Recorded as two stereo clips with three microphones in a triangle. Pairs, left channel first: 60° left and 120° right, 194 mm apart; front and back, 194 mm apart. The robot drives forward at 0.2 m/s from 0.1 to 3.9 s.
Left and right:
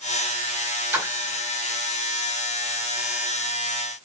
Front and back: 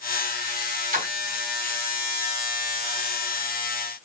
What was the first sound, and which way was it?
A splash, 165° left.